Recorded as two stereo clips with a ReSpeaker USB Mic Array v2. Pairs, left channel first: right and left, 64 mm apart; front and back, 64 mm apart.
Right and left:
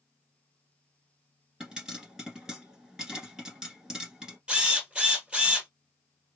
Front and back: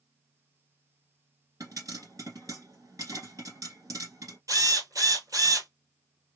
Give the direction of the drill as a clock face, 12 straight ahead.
7 o'clock.